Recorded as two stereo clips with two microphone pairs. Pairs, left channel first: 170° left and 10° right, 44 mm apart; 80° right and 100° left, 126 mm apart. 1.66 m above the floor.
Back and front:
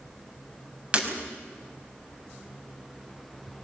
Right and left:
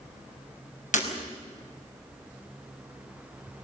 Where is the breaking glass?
70° right, 5 m.